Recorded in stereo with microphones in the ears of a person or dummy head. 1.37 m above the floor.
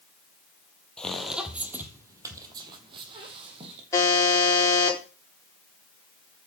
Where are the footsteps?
5° left (ahead or behind), 2 m; by 3.8 s 35° right (ahead or behind), 3.5 m.